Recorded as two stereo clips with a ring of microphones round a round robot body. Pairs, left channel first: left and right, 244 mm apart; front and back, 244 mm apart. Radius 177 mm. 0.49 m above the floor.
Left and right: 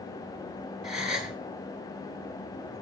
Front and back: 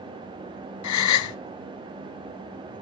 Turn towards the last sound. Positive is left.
turn(degrees=0)